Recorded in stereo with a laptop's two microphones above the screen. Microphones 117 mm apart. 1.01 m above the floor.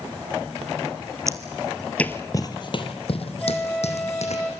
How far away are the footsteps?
About 1.4 m.